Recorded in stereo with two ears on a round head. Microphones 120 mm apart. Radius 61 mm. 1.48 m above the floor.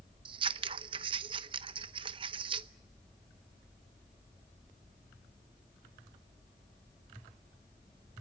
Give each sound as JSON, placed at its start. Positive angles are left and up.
{"t": 0.2, "sound": "scissors", "side_deg": -40, "distance_m": 0.8}